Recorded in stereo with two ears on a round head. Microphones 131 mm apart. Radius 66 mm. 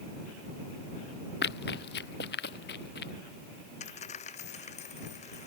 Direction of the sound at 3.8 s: 50° left (ahead or behind).